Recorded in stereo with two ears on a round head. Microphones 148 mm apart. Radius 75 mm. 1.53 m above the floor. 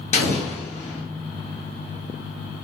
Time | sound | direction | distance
0.1 | an explosion | 40° left (ahead or behind) | 1.2 m